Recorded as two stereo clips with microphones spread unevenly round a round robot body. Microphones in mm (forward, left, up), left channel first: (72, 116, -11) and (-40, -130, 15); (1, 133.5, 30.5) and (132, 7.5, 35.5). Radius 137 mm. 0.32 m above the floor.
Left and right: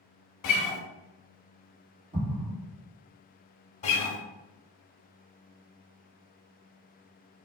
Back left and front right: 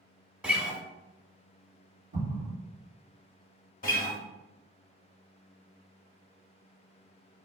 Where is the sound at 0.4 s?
40° left, 0.6 m.